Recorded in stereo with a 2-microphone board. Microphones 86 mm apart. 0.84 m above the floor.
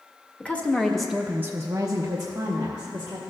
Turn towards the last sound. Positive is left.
turn(degrees=-40)  # may be behind; listen again after turning